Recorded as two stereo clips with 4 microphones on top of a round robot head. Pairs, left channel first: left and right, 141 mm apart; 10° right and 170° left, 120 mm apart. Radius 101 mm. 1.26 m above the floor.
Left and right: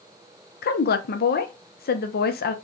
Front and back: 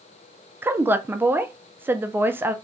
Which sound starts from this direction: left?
A woman speaking, at 0.6 s.